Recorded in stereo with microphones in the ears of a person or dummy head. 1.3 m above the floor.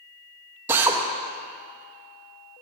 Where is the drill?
10° right (ahead or behind), 0.8 m.